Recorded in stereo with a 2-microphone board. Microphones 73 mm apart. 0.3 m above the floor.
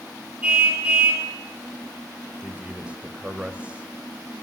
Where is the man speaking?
20° right (ahead or behind), 0.9 m.